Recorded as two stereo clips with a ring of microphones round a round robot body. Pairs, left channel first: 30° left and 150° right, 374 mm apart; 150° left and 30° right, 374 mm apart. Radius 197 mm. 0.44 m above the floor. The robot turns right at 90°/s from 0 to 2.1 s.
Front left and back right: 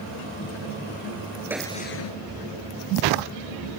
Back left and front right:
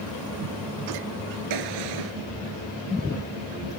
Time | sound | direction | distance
1.5 | a gunshot | 65° right | ?